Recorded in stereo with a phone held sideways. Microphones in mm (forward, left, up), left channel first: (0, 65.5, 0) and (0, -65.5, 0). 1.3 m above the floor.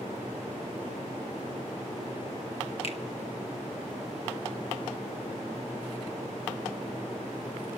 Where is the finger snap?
50° left (ahead or behind), 1.5 m.